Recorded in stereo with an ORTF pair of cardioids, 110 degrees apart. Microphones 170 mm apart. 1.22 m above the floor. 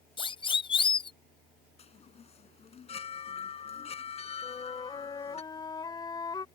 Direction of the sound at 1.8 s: 35° left.